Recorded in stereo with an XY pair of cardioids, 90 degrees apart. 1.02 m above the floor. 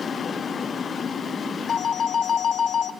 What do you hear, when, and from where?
1.7 s a phone ringing: 55° left, 0.7 m